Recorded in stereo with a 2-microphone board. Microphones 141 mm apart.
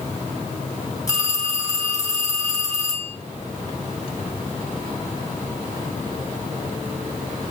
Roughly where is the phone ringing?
Left.